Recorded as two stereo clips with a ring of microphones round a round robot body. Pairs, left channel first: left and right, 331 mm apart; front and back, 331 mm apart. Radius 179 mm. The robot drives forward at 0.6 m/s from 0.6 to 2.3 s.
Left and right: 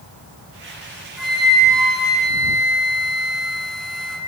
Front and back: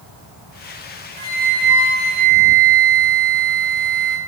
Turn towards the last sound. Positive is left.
turn(degrees=180)